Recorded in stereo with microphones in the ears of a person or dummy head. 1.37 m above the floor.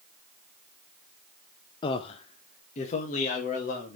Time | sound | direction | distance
1.8 | a man speaking | 30° left (ahead or behind) | 0.6 m